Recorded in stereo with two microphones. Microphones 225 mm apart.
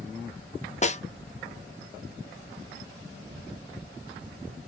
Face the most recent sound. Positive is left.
turn(degrees=30)  # may be behind; listen again after turning